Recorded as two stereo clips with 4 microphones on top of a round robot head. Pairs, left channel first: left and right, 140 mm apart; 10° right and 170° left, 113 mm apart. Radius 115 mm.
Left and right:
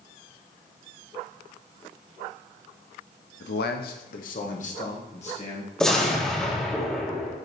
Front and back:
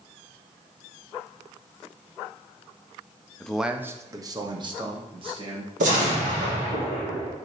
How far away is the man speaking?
About 0.6 m.